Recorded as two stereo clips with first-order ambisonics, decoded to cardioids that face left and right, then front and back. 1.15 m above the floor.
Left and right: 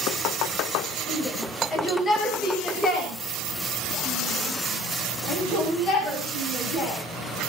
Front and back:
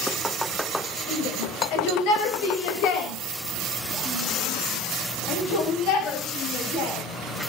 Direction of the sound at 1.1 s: 15° left.